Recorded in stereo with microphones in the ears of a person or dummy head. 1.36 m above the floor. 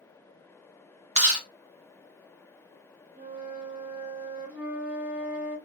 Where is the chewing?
35° right (ahead or behind), 0.7 m.